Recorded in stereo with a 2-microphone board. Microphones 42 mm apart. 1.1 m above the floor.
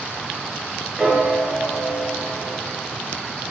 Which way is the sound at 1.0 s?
15° right (ahead or behind).